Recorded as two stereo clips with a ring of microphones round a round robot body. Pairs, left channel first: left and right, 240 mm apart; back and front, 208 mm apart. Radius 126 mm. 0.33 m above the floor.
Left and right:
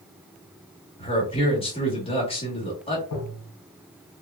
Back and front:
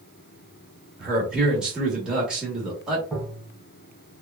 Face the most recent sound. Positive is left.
turn(degrees=95)